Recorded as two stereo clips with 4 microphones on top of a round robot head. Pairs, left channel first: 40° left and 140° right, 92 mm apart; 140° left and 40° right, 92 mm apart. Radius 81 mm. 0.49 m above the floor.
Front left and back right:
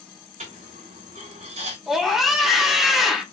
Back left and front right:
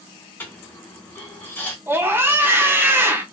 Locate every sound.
0.4 s a dropped coin: 145° right, 0.6 m
1.9 s a scream: 55° right, 0.8 m